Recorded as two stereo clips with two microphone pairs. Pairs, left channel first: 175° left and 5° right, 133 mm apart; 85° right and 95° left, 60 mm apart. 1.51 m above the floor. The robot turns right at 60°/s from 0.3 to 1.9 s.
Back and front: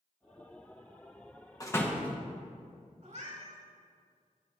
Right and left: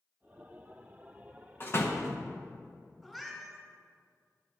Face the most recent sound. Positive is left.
turn(degrees=0)